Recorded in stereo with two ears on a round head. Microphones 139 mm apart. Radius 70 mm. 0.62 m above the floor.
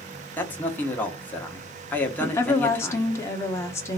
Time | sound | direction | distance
0.4 | a man speaking | 10° left (ahead or behind) | 1.1 m
2.2 | a woman speaking | 20° left (ahead or behind) | 1.1 m